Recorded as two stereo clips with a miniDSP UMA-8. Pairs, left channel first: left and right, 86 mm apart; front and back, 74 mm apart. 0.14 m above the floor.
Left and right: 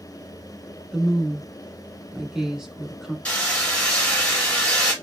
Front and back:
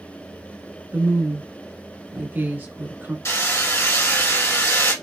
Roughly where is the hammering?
Ahead.